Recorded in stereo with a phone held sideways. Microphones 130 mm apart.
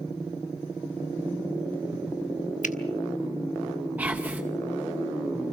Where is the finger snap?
70° left (ahead or behind), 1.1 m.